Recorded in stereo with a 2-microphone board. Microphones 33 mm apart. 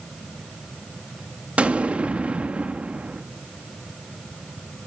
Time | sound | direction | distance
1.6 | an explosion | 45° right (ahead or behind) | 1.4 m